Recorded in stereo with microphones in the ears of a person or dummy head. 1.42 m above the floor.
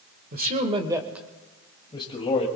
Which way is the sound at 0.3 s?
45° right (ahead or behind).